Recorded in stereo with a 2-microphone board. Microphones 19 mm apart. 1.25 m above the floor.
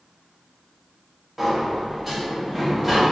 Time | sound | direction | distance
1.4 | a sliding door | 10° right (ahead or behind) | 0.8 m